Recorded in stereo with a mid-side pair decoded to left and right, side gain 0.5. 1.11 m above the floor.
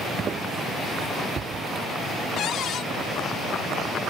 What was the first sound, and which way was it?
Footsteps, 40° right.